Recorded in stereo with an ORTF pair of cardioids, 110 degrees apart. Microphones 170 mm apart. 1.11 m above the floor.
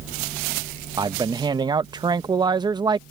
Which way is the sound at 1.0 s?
25° right.